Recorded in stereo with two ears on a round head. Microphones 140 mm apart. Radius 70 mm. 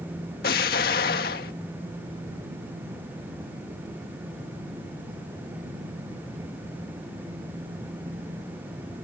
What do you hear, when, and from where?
0.4 s an explosion: 65° left (ahead or behind)